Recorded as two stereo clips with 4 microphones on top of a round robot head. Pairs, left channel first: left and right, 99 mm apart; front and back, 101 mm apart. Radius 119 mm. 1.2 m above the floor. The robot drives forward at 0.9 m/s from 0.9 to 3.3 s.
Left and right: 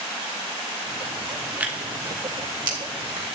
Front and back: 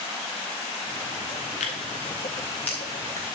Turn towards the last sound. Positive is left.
turn(degrees=-145)